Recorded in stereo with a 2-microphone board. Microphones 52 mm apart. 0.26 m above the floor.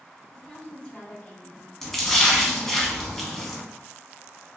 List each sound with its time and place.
0.3 s a woman speaking: 5° left (ahead or behind), 1.7 m; by 1.7 s 30° left (ahead or behind), 2.5 m
1.8 s a splash: 5° left (ahead or behind), 1.0 m